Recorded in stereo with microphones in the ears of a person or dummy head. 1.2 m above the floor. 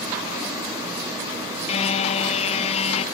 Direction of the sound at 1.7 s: 35° left (ahead or behind).